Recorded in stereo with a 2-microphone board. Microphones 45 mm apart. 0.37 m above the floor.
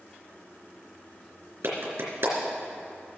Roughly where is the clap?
Right.